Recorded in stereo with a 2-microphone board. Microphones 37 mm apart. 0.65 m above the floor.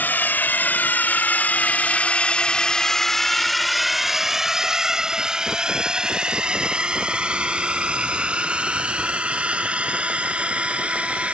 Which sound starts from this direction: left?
A drone, at 0.0 s.